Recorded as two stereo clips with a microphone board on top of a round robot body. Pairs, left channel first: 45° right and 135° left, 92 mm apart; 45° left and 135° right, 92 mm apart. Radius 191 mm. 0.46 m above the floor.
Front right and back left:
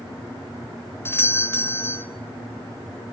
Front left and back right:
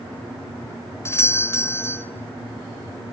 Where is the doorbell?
5° left, 2 m.